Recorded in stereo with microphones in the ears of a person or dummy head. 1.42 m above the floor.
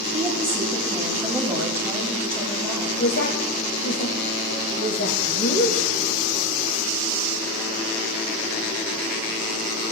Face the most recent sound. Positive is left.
turn(degrees=60)  # may be behind; listen again after turning